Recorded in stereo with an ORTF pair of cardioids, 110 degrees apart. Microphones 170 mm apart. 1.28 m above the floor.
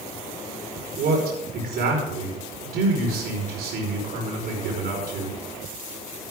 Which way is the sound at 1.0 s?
65° right.